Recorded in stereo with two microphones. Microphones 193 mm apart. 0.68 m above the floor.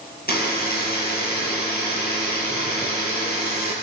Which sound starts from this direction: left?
A buzzer, at 0.3 s.